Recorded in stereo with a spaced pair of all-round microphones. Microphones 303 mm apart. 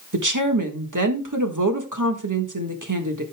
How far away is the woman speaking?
About 1.5 m.